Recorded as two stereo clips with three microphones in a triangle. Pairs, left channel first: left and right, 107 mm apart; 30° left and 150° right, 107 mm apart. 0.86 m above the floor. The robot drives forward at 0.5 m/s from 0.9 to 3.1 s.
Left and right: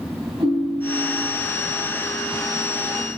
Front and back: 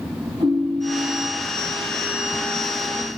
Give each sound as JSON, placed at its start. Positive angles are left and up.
{"t": 0.4, "sound": "a ringtone", "azimuth_deg": -130, "distance_m": 3.5}